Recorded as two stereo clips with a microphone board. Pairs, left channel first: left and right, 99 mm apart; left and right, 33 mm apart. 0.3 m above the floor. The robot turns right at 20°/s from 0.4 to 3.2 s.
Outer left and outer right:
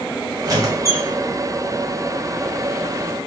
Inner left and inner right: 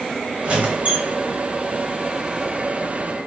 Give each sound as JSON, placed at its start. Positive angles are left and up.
{"t": 0.4, "sound": "a squeak", "side_deg": -40, "distance_m": 1.2}